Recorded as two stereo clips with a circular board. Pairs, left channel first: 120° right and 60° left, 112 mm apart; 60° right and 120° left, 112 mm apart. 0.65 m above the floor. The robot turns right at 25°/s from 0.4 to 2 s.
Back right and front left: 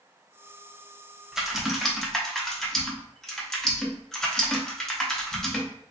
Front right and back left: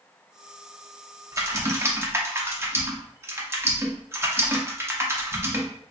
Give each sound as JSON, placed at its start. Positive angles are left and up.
{"t": 1.3, "sound": "typing on a keyboard", "azimuth_deg": 140, "distance_m": 0.6}